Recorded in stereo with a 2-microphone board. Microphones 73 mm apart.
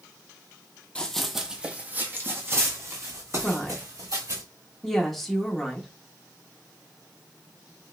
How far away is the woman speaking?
About 0.8 m.